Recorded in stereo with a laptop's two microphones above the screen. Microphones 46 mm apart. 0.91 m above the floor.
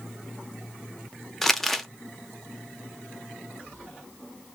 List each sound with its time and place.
1.4 s crumpling: 5° left (ahead or behind), 0.6 m